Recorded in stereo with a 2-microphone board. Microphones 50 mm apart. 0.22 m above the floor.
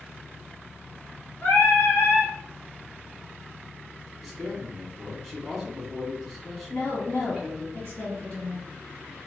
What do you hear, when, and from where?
1.4 s singing: 35° left (ahead or behind), 2 m
4.2 s a man speaking: centre (ahead or behind), 1.7 m
6.7 s a woman speaking: 30° left (ahead or behind), 1.8 m